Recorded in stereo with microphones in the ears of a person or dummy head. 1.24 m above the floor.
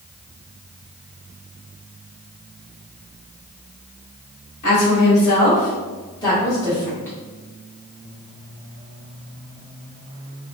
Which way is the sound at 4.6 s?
60° left (ahead or behind).